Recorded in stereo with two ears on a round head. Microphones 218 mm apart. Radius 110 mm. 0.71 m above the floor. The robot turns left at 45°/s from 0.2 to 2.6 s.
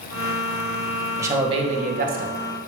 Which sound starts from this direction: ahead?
A man speaking, at 1.2 s.